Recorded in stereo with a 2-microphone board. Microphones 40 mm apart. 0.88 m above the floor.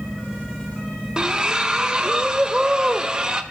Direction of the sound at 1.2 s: 20° right (ahead or behind).